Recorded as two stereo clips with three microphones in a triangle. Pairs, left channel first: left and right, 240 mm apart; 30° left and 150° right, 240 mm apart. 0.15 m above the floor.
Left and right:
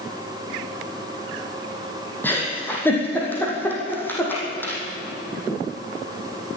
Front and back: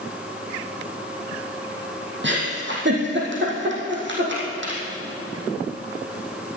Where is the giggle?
175° left, 3.5 m.